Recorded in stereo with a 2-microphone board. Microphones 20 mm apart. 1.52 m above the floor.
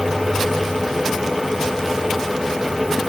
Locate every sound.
Only background noise.